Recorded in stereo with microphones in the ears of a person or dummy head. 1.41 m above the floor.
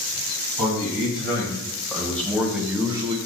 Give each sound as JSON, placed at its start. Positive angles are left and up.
{"t": 0.6, "sound": "a man speaking", "side_deg": 20, "distance_m": 1.8}